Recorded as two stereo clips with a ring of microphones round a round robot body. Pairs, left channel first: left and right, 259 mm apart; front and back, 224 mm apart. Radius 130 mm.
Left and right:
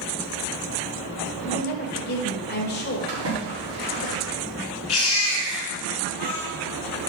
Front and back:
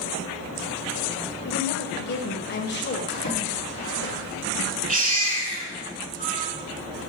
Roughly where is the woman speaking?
Ahead left.